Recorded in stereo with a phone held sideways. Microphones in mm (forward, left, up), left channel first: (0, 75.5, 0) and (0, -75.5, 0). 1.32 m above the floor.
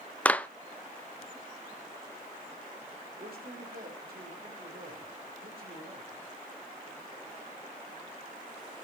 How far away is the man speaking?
About 4.5 m.